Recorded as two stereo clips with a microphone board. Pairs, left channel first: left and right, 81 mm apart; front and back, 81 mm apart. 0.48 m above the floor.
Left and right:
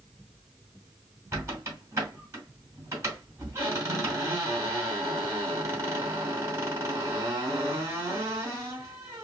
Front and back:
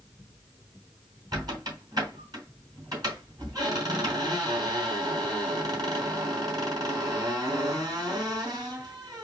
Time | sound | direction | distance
1.3 | a squeak | 145° right | 3 m